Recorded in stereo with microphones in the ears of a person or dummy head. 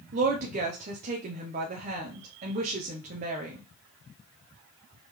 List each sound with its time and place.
0.1 s a woman speaking: 40° right (ahead or behind), 0.8 m